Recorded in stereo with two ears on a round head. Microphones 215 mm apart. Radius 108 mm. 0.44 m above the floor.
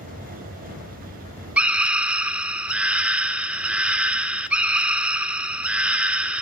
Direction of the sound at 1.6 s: 5° right (ahead or behind).